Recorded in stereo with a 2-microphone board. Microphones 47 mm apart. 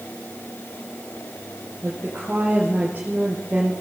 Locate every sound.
1.8 s a woman speaking: 35° right (ahead or behind), 4.5 m